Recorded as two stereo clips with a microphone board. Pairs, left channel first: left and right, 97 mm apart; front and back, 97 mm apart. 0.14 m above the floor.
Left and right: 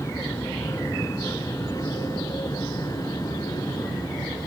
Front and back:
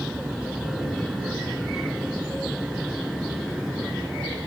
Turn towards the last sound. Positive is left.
turn(degrees=95)